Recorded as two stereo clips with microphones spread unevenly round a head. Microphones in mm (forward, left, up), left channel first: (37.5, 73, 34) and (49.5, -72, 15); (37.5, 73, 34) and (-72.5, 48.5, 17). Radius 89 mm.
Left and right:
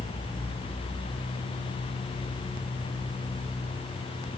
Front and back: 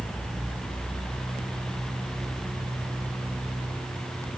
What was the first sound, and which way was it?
Only background noise.